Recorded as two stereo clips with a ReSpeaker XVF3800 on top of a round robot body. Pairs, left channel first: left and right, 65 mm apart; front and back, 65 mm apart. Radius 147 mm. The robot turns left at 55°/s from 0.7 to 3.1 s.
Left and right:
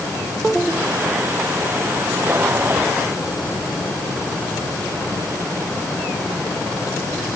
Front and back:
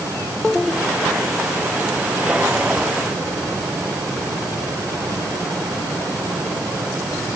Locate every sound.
Only background noise.